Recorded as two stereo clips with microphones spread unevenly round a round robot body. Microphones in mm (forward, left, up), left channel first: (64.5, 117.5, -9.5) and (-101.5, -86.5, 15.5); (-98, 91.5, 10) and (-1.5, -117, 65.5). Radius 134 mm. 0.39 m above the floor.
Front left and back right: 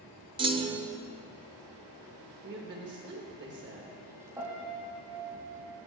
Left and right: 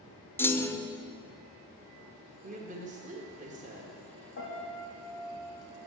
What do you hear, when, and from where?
0.4 s a clunk: 165° left, 0.6 m
2.4 s a woman speaking: 120° right, 1.2 m
4.4 s a piano: 155° left, 3 m